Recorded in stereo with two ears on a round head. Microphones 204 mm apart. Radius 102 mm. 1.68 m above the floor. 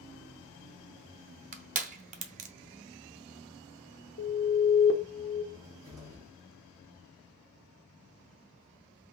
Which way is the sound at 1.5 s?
35° right (ahead or behind).